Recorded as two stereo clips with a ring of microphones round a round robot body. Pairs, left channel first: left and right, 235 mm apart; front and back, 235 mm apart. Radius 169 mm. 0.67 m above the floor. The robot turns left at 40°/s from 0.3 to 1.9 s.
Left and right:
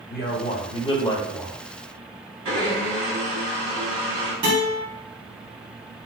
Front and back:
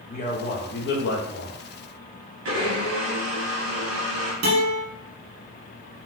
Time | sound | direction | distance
0.1 | a man speaking | 50° left | 1.0 m
2.5 | a blender | 145° right | 1.6 m
4.4 | a guitar | 155° right | 1.5 m